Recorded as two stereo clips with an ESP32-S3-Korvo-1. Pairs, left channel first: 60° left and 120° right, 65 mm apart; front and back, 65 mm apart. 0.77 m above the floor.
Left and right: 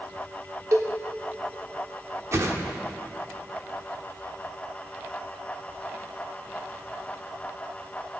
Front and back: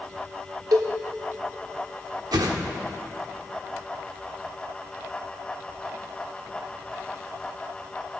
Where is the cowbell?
160° right, 0.8 m.